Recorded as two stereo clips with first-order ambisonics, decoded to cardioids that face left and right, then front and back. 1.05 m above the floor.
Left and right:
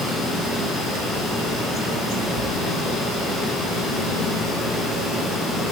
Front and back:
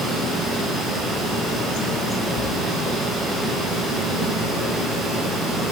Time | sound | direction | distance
2.4 | a splash | 130° left | 1.0 m